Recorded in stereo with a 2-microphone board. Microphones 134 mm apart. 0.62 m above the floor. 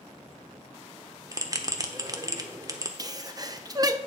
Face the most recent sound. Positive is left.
turn(degrees=-30)  # may be behind; listen again after turning